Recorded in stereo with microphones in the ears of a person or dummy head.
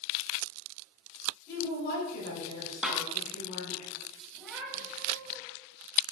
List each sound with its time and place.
1.5 s a woman speaking: 55° left (ahead or behind), 4 m
2.8 s a snare drum: 5° right (ahead or behind), 1.0 m
4.3 s a cat meowing: centre (ahead or behind), 1.7 m